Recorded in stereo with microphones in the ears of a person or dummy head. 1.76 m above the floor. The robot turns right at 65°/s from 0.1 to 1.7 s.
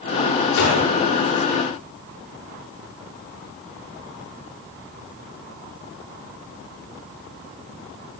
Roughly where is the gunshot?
Left.